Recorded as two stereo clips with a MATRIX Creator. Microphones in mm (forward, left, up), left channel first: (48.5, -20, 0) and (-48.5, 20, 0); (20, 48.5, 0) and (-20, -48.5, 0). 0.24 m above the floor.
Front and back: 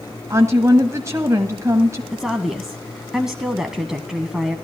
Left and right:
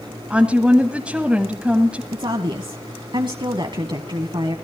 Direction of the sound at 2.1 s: 120° right.